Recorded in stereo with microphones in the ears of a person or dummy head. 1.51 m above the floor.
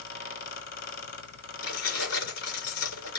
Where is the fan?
60° left (ahead or behind), 2.0 m.